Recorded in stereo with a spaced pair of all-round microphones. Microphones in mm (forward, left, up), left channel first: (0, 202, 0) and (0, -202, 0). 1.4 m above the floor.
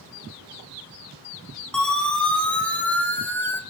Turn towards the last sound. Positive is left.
turn(degrees=5)  # may be behind; listen again after turning